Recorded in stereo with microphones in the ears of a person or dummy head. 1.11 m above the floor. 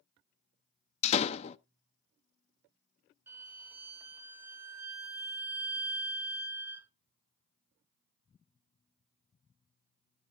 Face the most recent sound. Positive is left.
turn(degrees=-10)  # may be behind; listen again after turning